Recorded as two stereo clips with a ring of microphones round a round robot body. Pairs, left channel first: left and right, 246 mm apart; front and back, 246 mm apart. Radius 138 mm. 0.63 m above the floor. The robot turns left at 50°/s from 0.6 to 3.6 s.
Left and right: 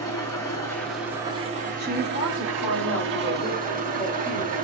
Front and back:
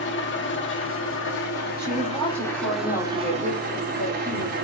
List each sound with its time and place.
0.0 s an engine running: 15° left, 1.3 m; by 4.7 s 135° right, 1.3 m
1.8 s a woman speaking: 110° left, 3 m; by 4.5 s 20° left, 3 m